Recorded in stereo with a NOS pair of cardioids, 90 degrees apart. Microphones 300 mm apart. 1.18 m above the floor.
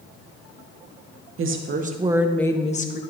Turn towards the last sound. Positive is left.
turn(degrees=35)